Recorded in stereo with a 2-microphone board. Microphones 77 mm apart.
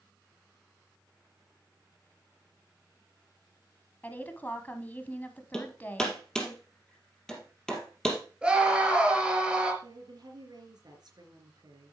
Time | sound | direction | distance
4.0 | a woman speaking | 25° left (ahead or behind) | 1.1 m
5.5 | hammering | 5° left (ahead or behind) | 3 m
8.4 | a scream | 5° right (ahead or behind) | 3 m
9.8 | a woman speaking | 65° right (ahead or behind) | 3.5 m